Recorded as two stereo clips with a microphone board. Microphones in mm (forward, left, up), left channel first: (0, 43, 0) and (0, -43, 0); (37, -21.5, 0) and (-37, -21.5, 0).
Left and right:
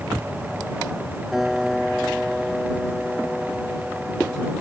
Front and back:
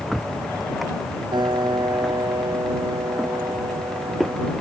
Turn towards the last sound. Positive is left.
turn(degrees=180)